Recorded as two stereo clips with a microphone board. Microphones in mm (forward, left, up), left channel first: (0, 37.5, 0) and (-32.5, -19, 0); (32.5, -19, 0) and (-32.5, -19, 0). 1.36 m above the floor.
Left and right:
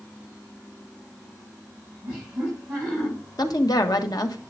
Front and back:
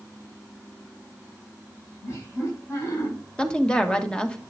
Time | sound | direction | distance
2.0 | laughter | 45° right | 7 m
3.4 | a woman speaking | 75° left | 1.4 m